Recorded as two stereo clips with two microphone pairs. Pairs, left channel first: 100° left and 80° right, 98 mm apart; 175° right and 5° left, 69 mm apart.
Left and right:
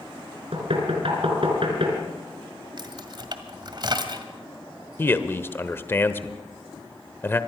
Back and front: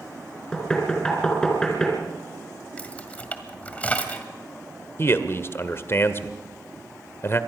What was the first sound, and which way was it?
Knocking, 95° right.